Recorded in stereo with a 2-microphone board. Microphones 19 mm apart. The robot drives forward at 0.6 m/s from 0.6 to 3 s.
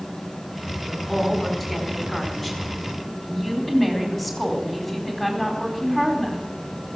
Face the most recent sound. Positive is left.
turn(degrees=5)  # may be behind; listen again after turning